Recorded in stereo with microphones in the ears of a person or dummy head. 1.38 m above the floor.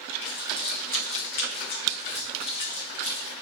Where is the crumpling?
25° left (ahead or behind), 1.5 m.